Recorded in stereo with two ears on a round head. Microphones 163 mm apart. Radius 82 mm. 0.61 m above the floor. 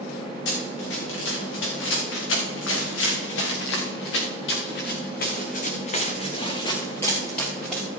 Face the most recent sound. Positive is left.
turn(degrees=0)  # may be behind; listen again after turning